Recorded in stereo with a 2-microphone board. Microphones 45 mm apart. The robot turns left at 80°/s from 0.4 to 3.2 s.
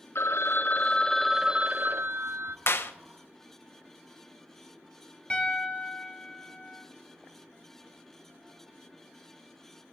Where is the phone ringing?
70° left, 0.5 m; by 2.6 s 100° right, 0.5 m.